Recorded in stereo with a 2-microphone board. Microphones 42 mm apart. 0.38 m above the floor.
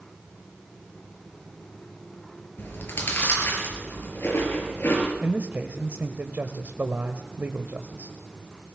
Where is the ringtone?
I don't hear a ringtone.